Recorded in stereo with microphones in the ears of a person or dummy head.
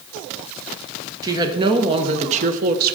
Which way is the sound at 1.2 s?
20° right (ahead or behind).